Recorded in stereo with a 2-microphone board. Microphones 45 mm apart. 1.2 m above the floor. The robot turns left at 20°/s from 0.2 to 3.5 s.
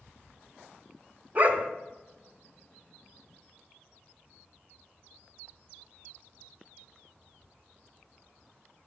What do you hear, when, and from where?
1.4 s a dog barking: 35° right (ahead or behind), 1.0 m; by 1.7 s 40° right (ahead or behind), 1.0 m